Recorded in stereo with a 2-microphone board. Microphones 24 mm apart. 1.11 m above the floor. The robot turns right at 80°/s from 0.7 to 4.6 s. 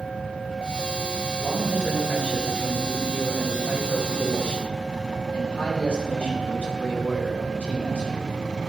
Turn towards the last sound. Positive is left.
turn(degrees=115)